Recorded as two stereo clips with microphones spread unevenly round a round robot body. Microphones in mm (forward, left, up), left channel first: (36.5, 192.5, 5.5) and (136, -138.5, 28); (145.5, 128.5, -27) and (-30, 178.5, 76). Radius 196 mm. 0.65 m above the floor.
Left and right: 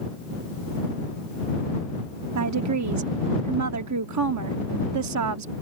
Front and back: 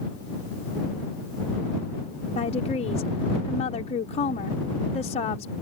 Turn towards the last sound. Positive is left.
turn(degrees=-35)